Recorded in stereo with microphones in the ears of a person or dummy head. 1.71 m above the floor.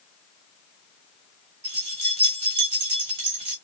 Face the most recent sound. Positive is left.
turn(degrees=-35)  # may be behind; listen again after turning